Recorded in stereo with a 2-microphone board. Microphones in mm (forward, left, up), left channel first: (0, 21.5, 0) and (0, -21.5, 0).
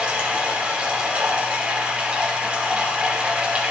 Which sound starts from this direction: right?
Running water, at 0.0 s.